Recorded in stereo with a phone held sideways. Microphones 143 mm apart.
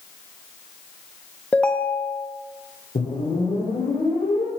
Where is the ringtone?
10° left (ahead or behind), 0.6 m.